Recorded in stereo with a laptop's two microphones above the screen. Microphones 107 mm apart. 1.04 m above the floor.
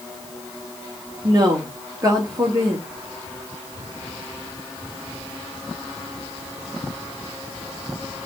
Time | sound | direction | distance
1.2 | a woman speaking | 35° right (ahead or behind) | 1.9 m